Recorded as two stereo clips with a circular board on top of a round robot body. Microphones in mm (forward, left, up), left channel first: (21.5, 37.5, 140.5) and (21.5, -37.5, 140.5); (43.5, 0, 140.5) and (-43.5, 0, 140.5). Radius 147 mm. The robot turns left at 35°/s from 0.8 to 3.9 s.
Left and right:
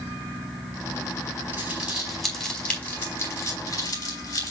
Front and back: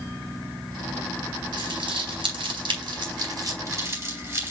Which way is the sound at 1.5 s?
155° right.